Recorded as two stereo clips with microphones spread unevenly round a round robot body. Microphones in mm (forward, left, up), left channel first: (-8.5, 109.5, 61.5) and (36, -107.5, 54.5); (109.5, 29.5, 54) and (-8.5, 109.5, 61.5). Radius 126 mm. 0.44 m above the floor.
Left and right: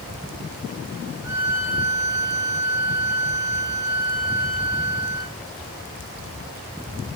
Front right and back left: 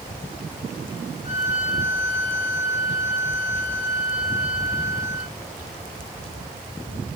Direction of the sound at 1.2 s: Straight ahead.